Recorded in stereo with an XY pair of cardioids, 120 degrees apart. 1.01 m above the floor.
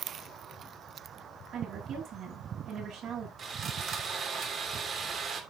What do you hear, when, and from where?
1.5 s a woman speaking: 55° right, 8 m
3.4 s sawing: 45° right, 3 m